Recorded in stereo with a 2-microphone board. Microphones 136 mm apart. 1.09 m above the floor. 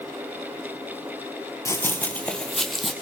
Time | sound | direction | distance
1.6 | running footsteps | 20° left (ahead or behind) | 1.4 m